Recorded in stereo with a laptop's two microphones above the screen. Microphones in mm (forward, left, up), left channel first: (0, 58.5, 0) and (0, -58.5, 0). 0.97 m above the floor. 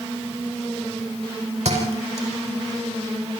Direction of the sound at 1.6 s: 65° right (ahead or behind).